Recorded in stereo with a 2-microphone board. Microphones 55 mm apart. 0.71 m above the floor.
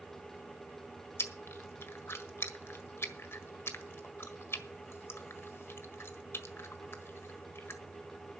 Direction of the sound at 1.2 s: 55° left (ahead or behind).